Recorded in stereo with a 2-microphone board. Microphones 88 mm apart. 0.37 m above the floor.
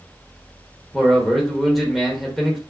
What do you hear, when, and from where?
0.9 s a man speaking: centre (ahead or behind), 0.9 m